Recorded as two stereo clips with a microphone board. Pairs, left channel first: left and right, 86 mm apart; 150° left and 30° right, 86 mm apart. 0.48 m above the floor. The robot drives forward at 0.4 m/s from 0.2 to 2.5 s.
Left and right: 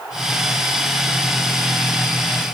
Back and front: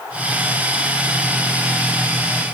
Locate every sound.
Only background noise.